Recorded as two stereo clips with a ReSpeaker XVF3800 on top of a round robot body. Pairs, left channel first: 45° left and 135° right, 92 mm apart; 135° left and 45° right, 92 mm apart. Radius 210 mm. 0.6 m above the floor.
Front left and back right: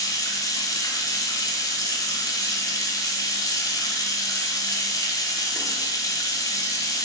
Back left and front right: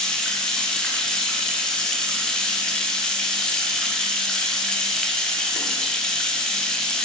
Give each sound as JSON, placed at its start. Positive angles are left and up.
{"t": 0.0, "sound": "running water", "azimuth_deg": 55, "distance_m": 0.8}